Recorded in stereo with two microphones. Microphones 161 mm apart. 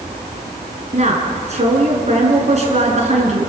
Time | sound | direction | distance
0.9 | a woman speaking | 45° right (ahead or behind) | 5.5 m